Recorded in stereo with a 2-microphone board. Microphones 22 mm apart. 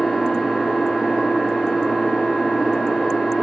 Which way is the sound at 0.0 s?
55° left (ahead or behind).